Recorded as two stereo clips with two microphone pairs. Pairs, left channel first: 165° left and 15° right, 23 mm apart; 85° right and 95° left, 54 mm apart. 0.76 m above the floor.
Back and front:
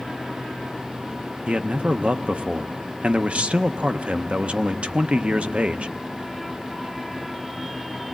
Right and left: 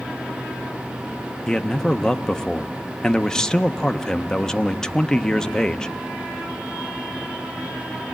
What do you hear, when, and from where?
1.5 s a man speaking: 10° right, 0.6 m